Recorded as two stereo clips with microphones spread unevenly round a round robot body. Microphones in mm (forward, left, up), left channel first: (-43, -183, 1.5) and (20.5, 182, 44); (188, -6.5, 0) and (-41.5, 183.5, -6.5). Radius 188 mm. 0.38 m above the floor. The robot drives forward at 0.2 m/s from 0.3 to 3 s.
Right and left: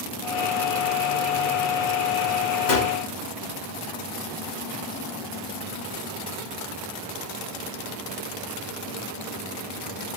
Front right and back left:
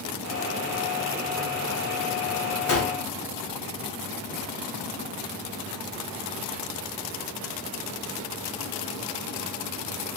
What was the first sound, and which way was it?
A gunshot, 85° right.